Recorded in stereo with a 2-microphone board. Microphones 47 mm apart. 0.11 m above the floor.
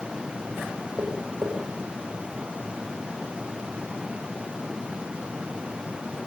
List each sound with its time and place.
1.0 s tapping: 85° right, 7 m